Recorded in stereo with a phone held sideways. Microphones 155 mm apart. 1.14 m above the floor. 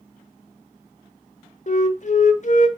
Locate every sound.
1.7 s a flute: 50° left (ahead or behind), 1.1 m